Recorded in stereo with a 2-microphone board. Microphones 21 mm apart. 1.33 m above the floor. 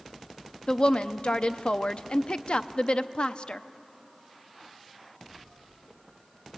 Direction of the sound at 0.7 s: 55° left (ahead or behind).